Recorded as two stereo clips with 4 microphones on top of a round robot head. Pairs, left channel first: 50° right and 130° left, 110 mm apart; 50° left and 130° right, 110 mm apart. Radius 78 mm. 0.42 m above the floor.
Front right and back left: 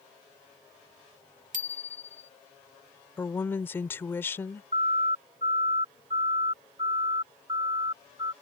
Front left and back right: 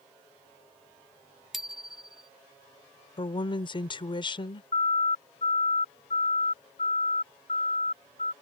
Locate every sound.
1.5 s a bicycle bell: 145° left
3.2 s a woman speaking: 15° left
4.7 s a siren: 90° left; by 8.3 s 70° left